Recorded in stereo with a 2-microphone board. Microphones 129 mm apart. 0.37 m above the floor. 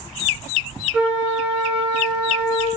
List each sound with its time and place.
0.9 s a flute: 10° right (ahead or behind), 1.5 m